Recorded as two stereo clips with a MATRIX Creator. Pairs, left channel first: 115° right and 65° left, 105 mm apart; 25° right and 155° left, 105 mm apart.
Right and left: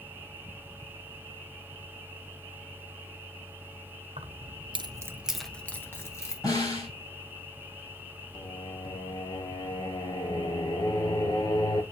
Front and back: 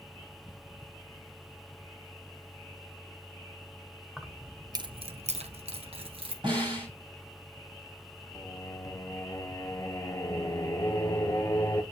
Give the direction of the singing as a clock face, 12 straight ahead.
3 o'clock.